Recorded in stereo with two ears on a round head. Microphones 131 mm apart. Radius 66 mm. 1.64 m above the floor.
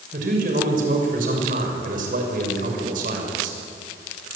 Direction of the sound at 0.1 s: 60° right (ahead or behind).